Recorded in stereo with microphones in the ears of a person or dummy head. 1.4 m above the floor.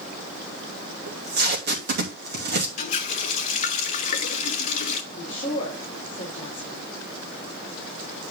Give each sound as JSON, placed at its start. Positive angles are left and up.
{"t": 1.1, "sound": "tape being pulled", "side_deg": -50, "distance_m": 2.5}
{"t": 2.8, "sound": "a running tap", "side_deg": 50, "distance_m": 1.1}
{"t": 5.1, "sound": "a woman speaking", "side_deg": 30, "distance_m": 3.5}